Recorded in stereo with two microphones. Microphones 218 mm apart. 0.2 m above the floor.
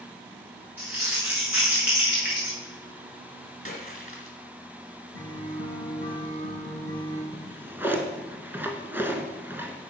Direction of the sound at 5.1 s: 60° right (ahead or behind).